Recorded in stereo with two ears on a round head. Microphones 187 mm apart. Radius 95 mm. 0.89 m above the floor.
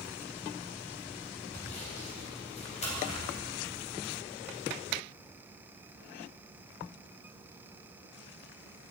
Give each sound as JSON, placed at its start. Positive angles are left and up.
{"t": 1.5, "sound": "sawing", "side_deg": 35, "distance_m": 4.0}